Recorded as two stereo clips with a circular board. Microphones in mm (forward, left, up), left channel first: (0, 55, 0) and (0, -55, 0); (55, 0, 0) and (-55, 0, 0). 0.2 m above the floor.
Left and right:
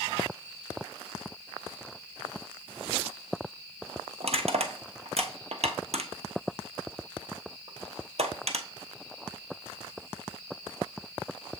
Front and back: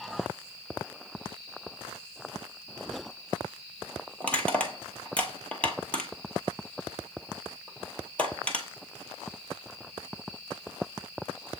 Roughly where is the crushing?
Right.